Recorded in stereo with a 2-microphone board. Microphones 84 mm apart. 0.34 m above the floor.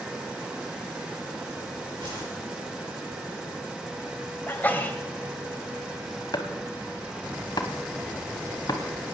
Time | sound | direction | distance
2.0 | a whoosh | 70° right (ahead or behind) | 7.5 m
4.5 | a sneeze | 20° left (ahead or behind) | 1.4 m
6.3 | chopping | 55° left (ahead or behind) | 1.0 m